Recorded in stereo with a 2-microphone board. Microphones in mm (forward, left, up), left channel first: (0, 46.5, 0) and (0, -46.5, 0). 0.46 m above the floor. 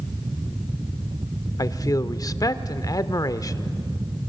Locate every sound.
1.6 s a man speaking: 40° left (ahead or behind), 0.9 m